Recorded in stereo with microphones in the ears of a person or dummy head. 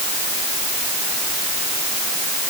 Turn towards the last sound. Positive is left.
No sound to turn to.